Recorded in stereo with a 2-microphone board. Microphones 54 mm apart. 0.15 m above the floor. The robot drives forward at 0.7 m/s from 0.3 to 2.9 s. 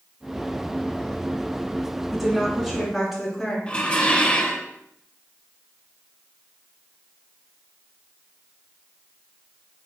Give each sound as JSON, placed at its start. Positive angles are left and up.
{"t": 2.1, "sound": "a woman speaking", "side_deg": -5, "distance_m": 1.1}
{"t": 3.7, "sound": "dishes clattering", "side_deg": 20, "distance_m": 0.8}